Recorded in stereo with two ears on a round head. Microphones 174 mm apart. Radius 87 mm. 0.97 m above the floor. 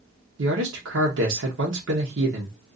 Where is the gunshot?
I don't hear a gunshot.